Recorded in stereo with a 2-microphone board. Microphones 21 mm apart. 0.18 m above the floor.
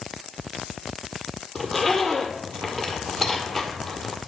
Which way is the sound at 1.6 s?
10° left (ahead or behind).